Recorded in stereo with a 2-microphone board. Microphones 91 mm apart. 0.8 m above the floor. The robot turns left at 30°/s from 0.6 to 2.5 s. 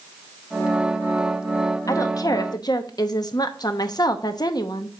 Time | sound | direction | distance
1.9 | a woman speaking | 40° left (ahead or behind) | 0.8 m